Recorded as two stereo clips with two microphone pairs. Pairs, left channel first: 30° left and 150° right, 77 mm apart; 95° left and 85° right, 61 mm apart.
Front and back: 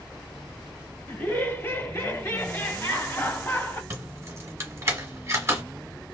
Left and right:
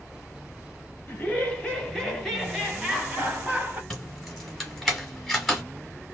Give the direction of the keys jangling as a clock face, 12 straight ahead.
6 o'clock.